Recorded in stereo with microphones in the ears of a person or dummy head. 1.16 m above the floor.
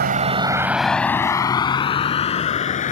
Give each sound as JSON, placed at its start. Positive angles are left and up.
{"t": 0.0, "sound": "a vehicle", "side_deg": -45}